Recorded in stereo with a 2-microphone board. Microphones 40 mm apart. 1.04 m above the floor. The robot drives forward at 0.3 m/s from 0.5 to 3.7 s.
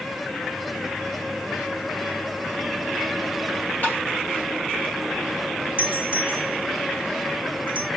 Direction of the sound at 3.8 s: 45° left (ahead or behind).